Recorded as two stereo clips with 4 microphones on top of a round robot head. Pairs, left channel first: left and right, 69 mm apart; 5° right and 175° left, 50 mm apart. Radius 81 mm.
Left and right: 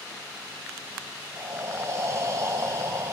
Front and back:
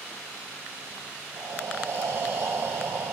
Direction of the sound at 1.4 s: 140° right.